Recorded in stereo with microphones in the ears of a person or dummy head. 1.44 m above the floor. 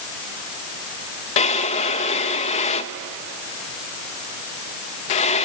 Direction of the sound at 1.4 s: 35° left (ahead or behind).